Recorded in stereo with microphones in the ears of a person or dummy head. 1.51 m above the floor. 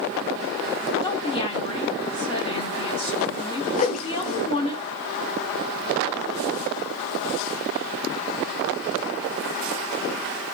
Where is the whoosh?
40° left (ahead or behind), 1.1 m.